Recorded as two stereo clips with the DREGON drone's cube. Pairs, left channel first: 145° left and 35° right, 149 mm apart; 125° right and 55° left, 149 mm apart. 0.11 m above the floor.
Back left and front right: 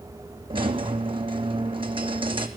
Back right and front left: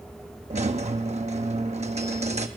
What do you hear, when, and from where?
0.5 s a squeak: 20° left, 0.6 m